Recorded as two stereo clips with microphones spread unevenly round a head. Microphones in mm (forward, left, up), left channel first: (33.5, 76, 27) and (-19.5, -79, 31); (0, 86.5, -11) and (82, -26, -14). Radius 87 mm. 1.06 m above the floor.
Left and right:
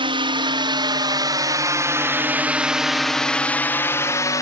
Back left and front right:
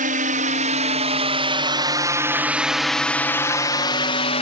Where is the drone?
55° right; by 4.4 s 130° left.